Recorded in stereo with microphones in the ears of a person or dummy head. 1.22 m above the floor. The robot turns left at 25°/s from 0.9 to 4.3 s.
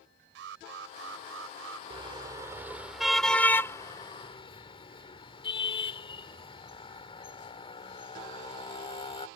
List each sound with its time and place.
0.3 s an alarm: 75° right (ahead or behind); by 1.8 s 80° right
1.9 s a car horn: 30° right (ahead or behind); by 9.3 s 30° left (ahead or behind)